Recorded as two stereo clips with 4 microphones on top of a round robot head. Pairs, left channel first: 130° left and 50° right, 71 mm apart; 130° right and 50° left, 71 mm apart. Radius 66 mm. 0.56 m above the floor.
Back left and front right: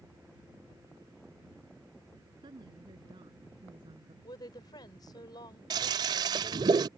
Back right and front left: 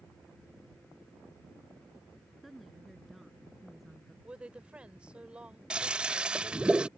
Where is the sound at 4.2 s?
125° left.